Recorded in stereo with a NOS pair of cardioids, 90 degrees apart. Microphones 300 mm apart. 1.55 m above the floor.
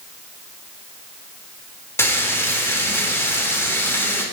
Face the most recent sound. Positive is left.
turn(degrees=10)